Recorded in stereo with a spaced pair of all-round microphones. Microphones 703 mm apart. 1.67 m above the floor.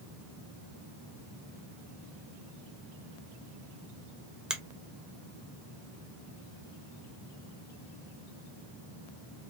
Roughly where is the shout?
No shout in this recording.